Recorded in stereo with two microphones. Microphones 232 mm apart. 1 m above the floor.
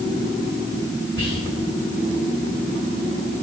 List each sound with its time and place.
1.2 s whispering: 25° left (ahead or behind), 1.5 m